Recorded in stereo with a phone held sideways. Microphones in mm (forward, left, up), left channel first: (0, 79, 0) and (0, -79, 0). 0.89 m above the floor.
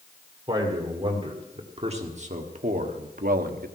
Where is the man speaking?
30° right (ahead or behind), 2 m; by 3.7 s 75° right (ahead or behind), 1.1 m.